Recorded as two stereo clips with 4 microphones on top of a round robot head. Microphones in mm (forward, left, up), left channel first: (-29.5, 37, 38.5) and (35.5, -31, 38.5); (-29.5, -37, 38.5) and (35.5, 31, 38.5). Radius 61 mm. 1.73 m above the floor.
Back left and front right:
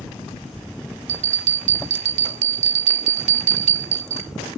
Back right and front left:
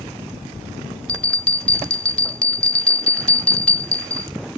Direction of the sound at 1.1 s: 55° right.